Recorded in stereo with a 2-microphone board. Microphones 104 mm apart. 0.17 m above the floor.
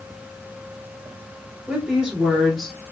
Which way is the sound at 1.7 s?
10° right (ahead or behind).